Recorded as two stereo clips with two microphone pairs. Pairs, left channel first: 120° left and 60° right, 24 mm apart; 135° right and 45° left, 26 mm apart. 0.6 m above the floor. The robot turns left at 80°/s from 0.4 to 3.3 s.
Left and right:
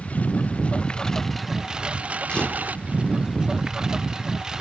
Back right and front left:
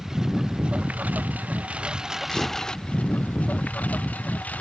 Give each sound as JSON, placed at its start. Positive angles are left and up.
{"t": 0.0, "sound": "a lawn mower", "azimuth_deg": 110}
{"t": 2.3, "sound": "a camera shutter", "azimuth_deg": 165}